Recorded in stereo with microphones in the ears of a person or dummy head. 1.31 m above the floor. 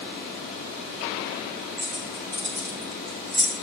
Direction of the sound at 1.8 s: 50° right (ahead or behind).